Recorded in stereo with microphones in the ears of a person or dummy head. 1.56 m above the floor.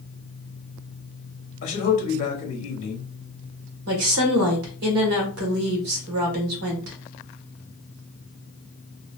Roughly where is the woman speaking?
Right.